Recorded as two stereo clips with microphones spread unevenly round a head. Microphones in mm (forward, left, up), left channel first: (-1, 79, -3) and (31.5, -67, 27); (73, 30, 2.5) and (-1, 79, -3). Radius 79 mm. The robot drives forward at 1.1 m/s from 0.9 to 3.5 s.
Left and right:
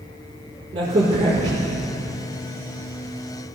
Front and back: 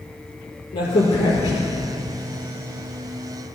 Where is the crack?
20° right, 4 m; by 1.7 s 25° right, 3 m.